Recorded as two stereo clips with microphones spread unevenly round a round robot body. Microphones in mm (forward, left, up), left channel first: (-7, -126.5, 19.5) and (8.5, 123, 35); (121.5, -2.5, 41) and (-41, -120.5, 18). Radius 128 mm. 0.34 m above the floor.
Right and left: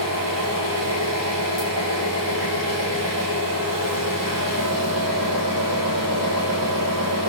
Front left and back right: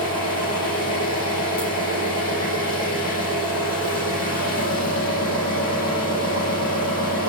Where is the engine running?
75° left, 9 m.